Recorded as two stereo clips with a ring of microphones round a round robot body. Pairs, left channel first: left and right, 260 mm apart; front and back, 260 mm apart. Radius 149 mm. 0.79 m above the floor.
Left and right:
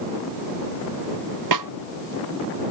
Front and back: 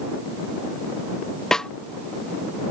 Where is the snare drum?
85° right.